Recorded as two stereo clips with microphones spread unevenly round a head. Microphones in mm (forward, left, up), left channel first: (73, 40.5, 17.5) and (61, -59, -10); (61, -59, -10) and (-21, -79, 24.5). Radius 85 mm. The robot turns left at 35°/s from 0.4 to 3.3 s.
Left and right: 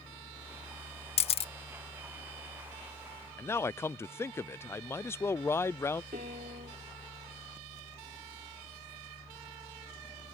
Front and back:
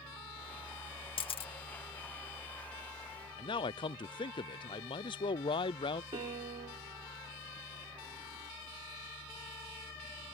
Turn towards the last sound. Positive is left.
turn(degrees=-145)